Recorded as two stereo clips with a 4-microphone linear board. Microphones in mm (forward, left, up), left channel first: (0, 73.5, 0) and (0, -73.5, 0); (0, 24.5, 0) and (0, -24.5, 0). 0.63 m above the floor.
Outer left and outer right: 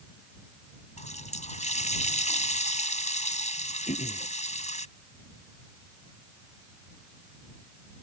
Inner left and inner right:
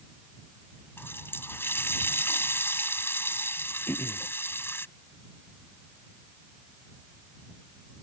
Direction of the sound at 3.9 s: 55° left (ahead or behind).